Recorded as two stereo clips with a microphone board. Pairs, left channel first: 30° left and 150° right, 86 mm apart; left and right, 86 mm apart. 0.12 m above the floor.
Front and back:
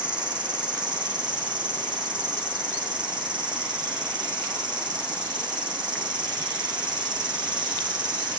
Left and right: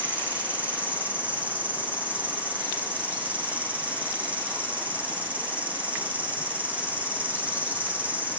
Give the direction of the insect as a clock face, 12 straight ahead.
5 o'clock.